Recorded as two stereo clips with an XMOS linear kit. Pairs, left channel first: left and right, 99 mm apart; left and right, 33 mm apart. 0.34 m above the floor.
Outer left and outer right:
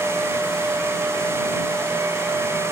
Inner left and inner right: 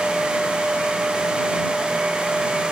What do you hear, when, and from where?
Only background noise.